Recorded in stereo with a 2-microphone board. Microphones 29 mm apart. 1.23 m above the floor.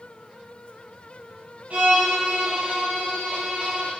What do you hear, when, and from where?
1.7 s a violin: 65° right (ahead or behind), 1.4 m